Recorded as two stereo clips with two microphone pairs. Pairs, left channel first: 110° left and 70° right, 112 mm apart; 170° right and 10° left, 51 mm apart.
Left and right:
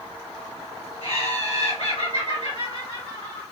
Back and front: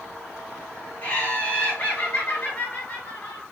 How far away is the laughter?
About 1.6 m.